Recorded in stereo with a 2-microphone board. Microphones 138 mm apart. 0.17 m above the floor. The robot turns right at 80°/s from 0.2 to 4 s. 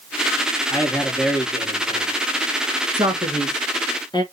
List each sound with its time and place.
0.7 s a man speaking: 135° left, 2.0 m; by 2.1 s 110° right, 2.0 m
2.9 s a man speaking: 35° right (ahead or behind), 1.6 m; by 4.2 s 30° left (ahead or behind), 1.6 m